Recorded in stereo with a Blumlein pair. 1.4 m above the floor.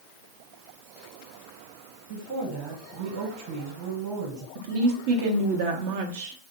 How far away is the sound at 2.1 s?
About 1.3 m.